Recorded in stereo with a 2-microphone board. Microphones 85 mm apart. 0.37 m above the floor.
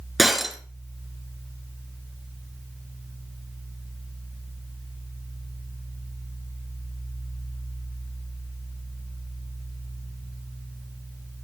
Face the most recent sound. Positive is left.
turn(degrees=0)  # may be behind; listen again after turning